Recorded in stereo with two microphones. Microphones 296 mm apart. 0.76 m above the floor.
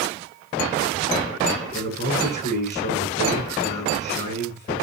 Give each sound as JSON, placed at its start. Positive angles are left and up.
{"t": 1.7, "sound": "a man speaking", "side_deg": 35, "distance_m": 8.5}